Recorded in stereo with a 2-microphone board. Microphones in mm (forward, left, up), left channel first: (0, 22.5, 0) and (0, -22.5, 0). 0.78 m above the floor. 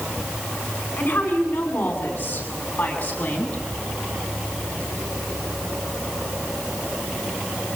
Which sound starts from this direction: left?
A woman speaking, at 1.0 s.